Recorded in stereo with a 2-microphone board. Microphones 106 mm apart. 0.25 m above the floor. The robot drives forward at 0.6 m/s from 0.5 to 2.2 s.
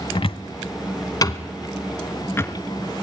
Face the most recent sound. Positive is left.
turn(degrees=25)  # may be behind; listen again after turning